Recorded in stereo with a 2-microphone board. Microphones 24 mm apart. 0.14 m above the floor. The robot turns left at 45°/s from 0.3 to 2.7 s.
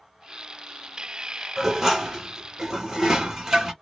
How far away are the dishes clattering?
About 1.0 m.